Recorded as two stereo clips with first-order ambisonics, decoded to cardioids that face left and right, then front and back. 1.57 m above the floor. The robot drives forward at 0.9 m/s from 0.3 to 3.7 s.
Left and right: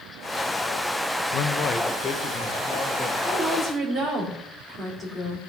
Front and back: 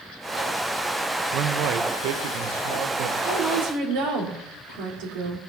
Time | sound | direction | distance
1.3 | a man speaking | 135° left | 0.9 m
3.2 | a woman speaking | 165° left | 4.5 m